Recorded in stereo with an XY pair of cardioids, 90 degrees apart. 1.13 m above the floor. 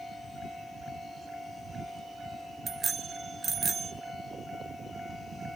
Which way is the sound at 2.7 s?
50° right.